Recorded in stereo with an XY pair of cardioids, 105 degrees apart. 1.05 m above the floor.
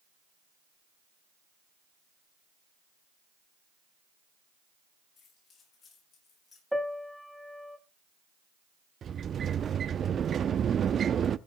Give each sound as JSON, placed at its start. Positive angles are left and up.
{"t": 5.2, "sound": "keys jangling", "azimuth_deg": 60, "distance_m": 8.5}
{"t": 6.7, "sound": "a piano", "azimuth_deg": 0, "distance_m": 1.6}
{"t": 9.0, "sound": "a sliding door", "azimuth_deg": -45, "distance_m": 0.8}